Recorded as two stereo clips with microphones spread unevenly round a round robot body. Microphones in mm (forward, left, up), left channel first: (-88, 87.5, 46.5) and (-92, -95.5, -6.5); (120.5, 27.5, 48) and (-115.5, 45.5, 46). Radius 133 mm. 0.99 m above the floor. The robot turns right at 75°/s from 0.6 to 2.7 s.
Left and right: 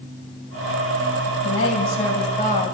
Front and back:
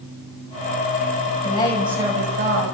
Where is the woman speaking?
50° left, 5 m; by 2.7 s 145° left, 5 m.